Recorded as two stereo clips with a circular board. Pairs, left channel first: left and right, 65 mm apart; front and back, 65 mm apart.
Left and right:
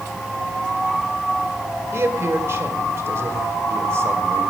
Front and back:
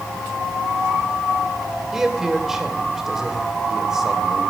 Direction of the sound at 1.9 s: 100° right.